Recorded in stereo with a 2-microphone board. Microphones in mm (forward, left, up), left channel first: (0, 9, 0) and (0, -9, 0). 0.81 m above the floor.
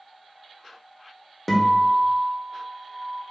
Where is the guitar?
10° left (ahead or behind), 1.0 m.